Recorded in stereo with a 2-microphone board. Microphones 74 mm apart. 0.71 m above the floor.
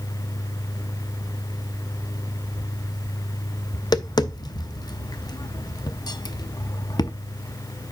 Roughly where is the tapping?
Left.